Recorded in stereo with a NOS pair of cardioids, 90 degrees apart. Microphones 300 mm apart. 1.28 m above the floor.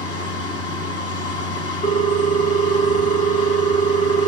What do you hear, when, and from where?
0.0 s a machine running: 50° left, 1.6 m
1.8 s a ringtone: 25° left, 0.8 m